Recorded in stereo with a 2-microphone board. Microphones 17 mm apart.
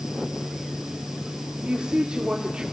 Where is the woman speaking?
65° right (ahead or behind), 2 m.